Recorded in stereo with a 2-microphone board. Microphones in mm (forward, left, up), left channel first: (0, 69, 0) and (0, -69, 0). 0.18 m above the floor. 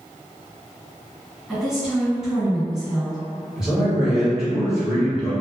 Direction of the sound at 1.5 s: Centre (ahead or behind).